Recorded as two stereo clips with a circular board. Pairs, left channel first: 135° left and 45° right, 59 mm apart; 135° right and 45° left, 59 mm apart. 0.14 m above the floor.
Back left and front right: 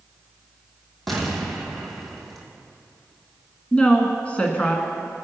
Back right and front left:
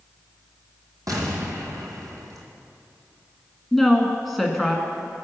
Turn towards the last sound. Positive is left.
turn(degrees=140)